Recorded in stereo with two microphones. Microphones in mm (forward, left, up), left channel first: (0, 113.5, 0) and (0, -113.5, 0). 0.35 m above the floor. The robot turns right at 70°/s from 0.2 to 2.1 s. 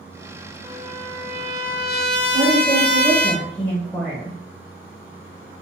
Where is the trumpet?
10° right, 0.6 m; by 3.3 s 90° left, 0.6 m.